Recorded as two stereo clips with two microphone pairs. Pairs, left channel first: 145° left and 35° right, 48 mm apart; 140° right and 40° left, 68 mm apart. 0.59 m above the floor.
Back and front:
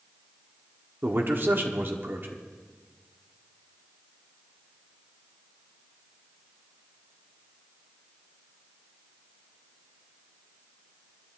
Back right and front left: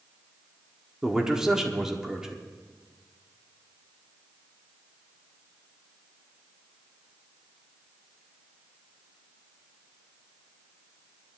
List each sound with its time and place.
1.0 s a man speaking: 35° right, 1.3 m